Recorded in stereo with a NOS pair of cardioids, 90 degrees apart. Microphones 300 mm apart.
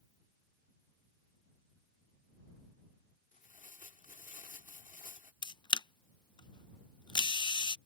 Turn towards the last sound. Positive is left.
turn(degrees=15)